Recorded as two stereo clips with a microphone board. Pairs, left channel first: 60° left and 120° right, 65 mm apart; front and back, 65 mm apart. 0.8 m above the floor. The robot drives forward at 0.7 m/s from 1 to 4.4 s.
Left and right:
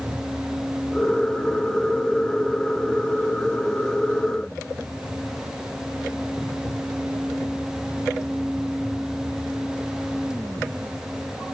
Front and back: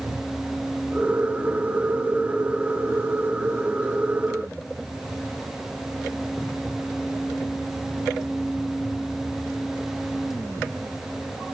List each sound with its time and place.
Only background noise.